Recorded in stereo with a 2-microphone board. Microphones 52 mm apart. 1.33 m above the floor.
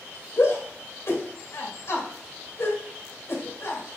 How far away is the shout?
About 2.5 m.